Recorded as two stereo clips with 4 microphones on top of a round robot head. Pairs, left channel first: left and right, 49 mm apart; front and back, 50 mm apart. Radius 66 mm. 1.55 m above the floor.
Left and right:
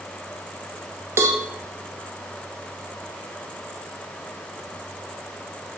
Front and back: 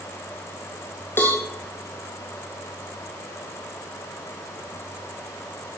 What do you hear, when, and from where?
1.2 s a cowbell: 55° right, 1.2 m